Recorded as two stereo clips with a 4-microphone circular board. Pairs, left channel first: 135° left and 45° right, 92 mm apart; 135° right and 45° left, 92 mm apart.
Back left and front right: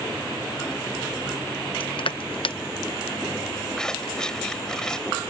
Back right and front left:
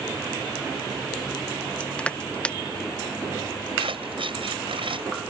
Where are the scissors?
50° left.